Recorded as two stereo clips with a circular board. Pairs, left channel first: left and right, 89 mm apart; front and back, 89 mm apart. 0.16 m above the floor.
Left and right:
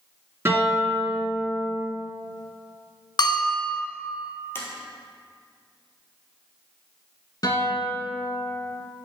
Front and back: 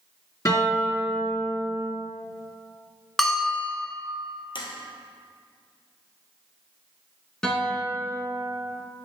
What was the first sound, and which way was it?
A guitar, 40° right.